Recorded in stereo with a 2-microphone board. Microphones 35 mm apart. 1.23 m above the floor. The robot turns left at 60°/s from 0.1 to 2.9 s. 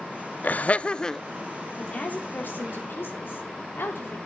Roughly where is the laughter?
Ahead left.